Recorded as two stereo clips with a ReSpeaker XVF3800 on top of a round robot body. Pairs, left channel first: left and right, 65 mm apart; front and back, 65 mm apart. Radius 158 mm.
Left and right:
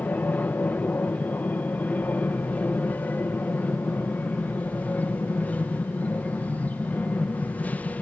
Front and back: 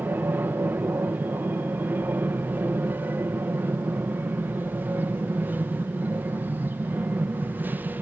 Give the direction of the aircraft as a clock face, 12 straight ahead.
7 o'clock.